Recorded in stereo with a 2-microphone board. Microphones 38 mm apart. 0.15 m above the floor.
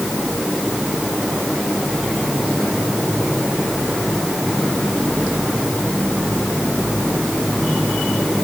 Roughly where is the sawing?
I don't hear sawing.